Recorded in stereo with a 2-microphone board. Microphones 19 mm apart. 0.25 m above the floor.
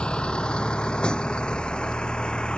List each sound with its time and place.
0.0 s a vehicle: 55° left (ahead or behind)